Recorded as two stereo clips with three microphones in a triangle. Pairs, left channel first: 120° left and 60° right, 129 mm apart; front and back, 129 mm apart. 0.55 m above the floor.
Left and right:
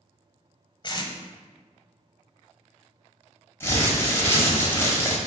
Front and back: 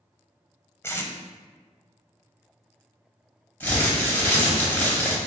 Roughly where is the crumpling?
Ahead left.